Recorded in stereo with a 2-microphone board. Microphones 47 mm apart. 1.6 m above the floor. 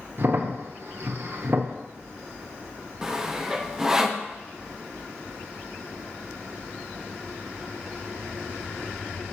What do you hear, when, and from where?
0.2 s a crack: 50° right (ahead or behind), 0.9 m
3.0 s sawing: 10° right (ahead or behind), 0.6 m